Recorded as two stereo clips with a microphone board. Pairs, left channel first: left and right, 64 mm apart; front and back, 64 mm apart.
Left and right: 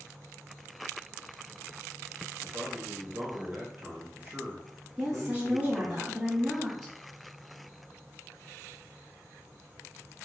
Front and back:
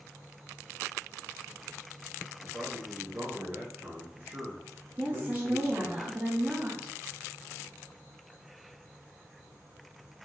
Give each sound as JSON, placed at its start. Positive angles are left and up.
{"t": 2.4, "sound": "a man speaking", "azimuth_deg": -140, "distance_m": 1.4}
{"t": 5.0, "sound": "a woman speaking", "azimuth_deg": 180, "distance_m": 1.1}